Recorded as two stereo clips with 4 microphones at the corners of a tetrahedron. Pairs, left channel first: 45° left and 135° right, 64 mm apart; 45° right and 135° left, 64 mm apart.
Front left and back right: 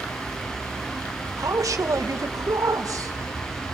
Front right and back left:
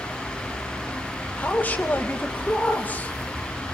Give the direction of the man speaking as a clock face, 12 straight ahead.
4 o'clock.